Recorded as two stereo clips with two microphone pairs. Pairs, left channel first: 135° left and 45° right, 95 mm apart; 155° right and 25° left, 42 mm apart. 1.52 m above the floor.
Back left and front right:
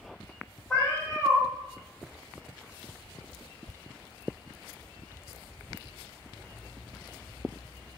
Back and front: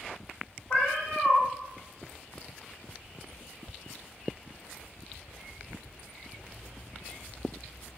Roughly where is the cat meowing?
Behind right.